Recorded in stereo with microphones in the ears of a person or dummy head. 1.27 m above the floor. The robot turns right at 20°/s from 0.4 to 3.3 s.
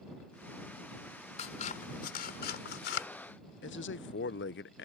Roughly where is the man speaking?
Left.